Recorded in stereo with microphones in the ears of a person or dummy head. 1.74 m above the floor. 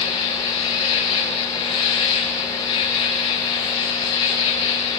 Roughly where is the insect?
Left.